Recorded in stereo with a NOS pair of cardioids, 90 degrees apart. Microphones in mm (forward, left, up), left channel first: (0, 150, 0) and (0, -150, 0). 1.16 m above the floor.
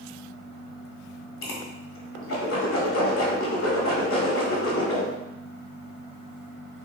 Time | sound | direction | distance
1.4 | a whoosh | 45° left | 1.7 m